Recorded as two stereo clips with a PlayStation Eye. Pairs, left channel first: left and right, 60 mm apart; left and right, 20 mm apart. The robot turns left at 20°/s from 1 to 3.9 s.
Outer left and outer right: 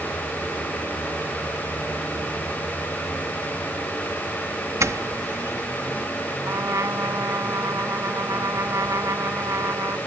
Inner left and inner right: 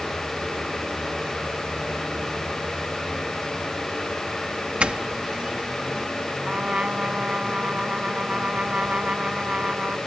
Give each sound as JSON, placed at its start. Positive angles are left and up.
{"t": 4.8, "sound": "a doorbell", "side_deg": -60}
{"t": 6.5, "sound": "a trumpet", "side_deg": -60}